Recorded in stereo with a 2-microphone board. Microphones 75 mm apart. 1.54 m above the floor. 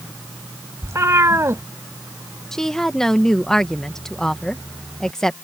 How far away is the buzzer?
No buzzer in this recording.